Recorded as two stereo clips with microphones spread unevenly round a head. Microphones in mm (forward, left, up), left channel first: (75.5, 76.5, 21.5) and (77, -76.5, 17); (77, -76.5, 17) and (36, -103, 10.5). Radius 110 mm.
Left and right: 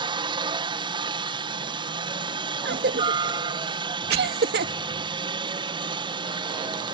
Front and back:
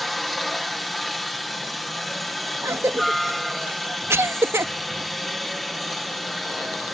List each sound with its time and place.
0.0 s a helicopter: 55° right
2.6 s a cough: 125° right